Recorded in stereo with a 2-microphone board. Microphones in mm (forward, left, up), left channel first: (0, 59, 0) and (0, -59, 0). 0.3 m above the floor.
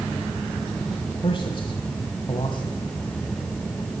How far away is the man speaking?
About 1.7 m.